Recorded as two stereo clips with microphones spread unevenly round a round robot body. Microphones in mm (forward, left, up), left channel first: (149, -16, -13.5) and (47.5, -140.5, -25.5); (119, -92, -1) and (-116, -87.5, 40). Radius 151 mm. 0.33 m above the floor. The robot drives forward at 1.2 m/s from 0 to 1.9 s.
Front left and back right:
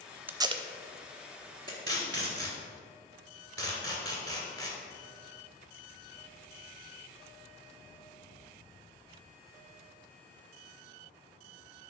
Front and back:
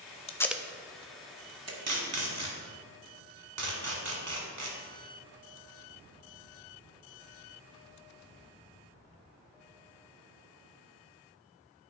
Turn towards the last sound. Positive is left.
turn(degrees=-165)